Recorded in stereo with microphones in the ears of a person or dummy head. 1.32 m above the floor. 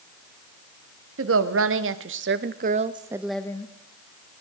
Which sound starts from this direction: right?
A woman speaking, at 1.2 s.